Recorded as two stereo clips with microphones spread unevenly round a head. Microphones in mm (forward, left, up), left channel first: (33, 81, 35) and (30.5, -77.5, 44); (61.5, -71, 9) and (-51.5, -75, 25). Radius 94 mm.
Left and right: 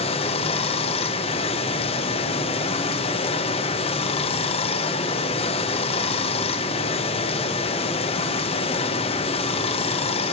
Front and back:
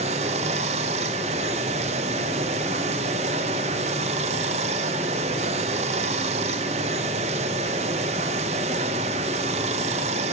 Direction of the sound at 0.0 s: 140° left.